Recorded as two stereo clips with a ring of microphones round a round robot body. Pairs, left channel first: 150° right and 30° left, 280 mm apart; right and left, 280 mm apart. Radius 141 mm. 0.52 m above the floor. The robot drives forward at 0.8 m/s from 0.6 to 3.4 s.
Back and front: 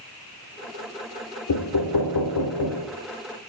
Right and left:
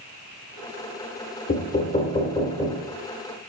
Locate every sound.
1.5 s knocking: 150° right, 1.1 m; by 2.9 s 165° right, 2 m